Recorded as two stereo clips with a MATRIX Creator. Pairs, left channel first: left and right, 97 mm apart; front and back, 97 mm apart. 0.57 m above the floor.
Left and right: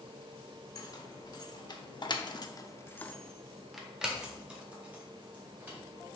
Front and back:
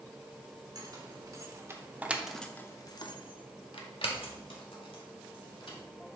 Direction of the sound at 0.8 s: 135° left.